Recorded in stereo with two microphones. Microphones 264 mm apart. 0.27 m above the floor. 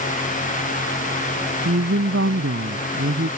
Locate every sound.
1.6 s a woman speaking: 60° right (ahead or behind)